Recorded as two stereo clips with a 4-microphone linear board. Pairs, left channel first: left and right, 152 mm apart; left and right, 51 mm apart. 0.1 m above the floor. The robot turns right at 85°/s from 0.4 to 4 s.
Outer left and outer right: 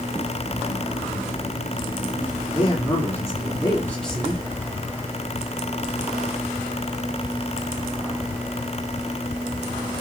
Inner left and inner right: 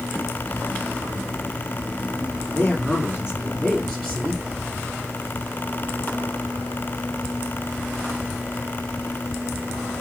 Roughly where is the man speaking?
Ahead left.